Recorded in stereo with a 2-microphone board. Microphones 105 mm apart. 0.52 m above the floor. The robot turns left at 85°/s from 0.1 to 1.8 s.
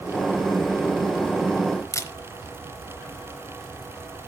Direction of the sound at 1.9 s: 30° left (ahead or behind).